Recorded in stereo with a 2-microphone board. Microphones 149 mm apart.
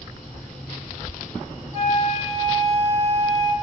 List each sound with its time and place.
1.7 s a flute: 25° right (ahead or behind), 2 m